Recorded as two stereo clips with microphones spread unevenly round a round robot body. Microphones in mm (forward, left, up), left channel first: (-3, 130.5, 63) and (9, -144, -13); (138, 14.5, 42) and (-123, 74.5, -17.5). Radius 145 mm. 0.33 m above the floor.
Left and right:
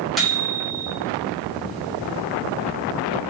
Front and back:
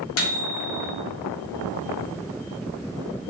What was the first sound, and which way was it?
A microwave, 15° right.